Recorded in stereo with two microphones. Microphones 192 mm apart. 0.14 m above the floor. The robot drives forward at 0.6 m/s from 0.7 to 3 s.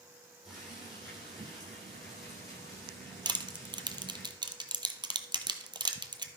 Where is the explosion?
No explosion in this recording.